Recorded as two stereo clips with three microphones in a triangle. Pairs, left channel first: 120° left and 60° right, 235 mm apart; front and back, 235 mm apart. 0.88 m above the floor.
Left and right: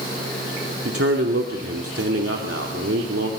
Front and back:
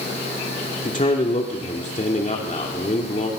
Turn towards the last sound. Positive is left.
turn(degrees=-55)